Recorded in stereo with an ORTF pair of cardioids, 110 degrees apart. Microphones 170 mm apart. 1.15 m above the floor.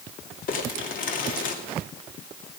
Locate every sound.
0.5 s crumpling: 55° left, 2.5 m